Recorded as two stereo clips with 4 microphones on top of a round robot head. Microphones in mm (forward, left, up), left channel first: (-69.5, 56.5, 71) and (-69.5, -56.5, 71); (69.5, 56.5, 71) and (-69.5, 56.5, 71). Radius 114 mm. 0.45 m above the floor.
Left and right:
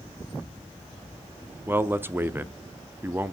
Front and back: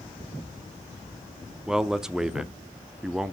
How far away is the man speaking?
About 0.7 m.